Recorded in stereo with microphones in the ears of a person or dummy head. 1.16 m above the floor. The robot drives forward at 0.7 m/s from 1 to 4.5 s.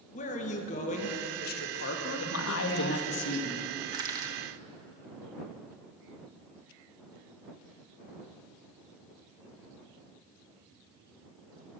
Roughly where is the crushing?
Right.